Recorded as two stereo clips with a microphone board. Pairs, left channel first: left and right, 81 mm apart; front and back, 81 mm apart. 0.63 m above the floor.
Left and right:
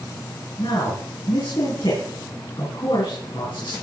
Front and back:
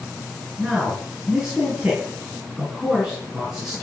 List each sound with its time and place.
0.6 s a man speaking: 100° left, 7 m